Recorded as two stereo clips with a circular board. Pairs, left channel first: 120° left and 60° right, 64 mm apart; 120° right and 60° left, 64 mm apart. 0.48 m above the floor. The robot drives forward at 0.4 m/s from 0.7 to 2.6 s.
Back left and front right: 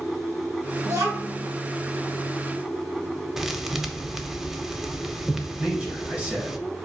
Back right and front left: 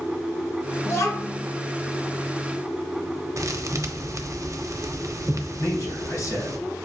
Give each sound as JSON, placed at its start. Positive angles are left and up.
{"t": 0.8, "sound": "a child speaking", "azimuth_deg": -85, "distance_m": 1.6}
{"t": 3.4, "sound": "a thud", "azimuth_deg": 25, "distance_m": 0.5}
{"t": 5.6, "sound": "a man speaking", "azimuth_deg": -120, "distance_m": 1.3}